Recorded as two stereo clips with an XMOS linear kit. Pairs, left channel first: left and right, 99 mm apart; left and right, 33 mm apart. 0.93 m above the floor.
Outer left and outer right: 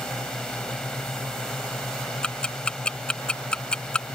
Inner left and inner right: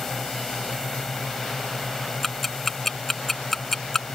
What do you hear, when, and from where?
0.0 s a drone: 10° left (ahead or behind)
2.2 s ticking: 10° left (ahead or behind)